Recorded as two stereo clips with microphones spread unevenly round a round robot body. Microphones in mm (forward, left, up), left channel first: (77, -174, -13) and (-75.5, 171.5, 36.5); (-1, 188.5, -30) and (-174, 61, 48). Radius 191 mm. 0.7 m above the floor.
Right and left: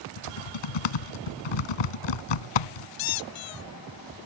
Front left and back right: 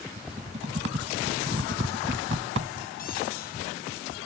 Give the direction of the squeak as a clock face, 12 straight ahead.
1 o'clock.